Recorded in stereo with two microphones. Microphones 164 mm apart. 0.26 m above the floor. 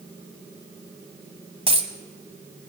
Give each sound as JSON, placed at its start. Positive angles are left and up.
{"t": 1.7, "sound": "a dropped coin", "side_deg": -35, "distance_m": 0.9}